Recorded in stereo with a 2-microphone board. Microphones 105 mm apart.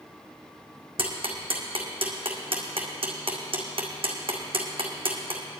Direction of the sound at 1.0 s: 60° right (ahead or behind).